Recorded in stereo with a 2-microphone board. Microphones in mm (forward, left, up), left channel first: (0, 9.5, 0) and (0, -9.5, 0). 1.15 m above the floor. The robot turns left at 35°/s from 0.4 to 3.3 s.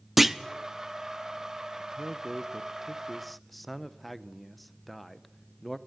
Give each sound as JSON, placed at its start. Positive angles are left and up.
{"t": 0.2, "sound": "a clunk", "side_deg": -15, "distance_m": 0.7}
{"t": 1.8, "sound": "a man speaking", "azimuth_deg": -125, "distance_m": 0.7}